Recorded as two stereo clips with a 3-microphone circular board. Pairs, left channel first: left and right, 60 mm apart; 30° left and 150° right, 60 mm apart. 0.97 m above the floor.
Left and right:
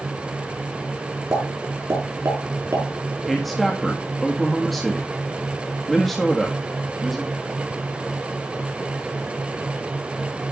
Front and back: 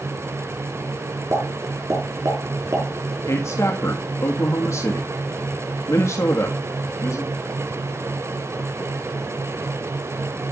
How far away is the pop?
About 5.5 m.